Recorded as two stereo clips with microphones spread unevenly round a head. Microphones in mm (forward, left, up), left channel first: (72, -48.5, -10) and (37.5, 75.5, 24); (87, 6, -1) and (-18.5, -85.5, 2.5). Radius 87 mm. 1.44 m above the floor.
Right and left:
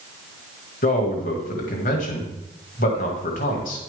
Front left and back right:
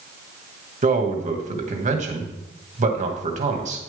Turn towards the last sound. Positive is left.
turn(degrees=-105)